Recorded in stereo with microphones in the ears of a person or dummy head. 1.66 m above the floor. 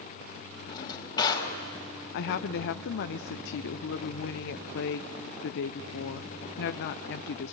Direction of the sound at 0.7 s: 25° left (ahead or behind).